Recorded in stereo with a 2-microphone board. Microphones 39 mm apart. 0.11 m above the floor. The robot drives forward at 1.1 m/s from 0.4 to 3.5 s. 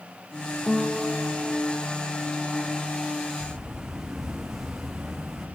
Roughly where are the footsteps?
Centre.